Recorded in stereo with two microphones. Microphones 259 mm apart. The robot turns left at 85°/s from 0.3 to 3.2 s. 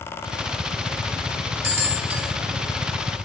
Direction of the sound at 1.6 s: 60° right (ahead or behind).